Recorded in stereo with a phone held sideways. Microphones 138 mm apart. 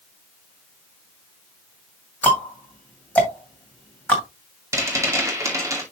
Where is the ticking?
10° left (ahead or behind), 2 m.